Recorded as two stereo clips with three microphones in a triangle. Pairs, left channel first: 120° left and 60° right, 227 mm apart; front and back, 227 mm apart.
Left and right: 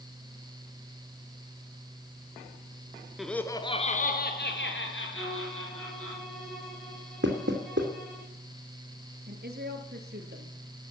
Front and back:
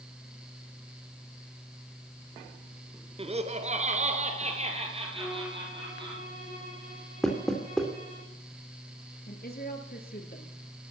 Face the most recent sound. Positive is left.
turn(degrees=-35)